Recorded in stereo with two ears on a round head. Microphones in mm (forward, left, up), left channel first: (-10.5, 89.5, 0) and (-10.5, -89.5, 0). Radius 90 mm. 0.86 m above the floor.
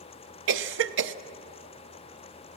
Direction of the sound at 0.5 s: 65° right (ahead or behind).